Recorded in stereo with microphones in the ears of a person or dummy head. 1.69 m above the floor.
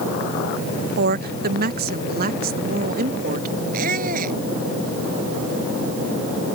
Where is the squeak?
45° right (ahead or behind).